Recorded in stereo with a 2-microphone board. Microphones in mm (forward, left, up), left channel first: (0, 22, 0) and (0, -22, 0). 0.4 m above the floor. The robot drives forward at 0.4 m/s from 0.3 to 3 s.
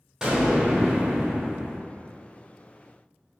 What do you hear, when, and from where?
0.2 s an explosion: 10° right (ahead or behind), 0.9 m